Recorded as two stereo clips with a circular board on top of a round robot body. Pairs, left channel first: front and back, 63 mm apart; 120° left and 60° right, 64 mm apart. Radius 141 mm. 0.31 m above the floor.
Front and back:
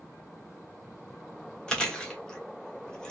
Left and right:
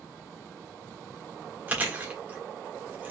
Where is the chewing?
60° right, 1.4 m.